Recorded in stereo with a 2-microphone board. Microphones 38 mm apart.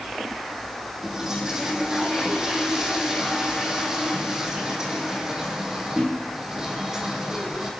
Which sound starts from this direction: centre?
A toilet flushing, at 1.0 s.